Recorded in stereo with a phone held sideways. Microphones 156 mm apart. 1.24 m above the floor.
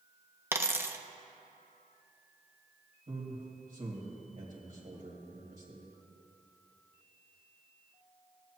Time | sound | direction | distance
0.5 | a dropped coin | 15° right (ahead or behind) | 0.5 m
3.1 | a man speaking | 55° right (ahead or behind) | 2 m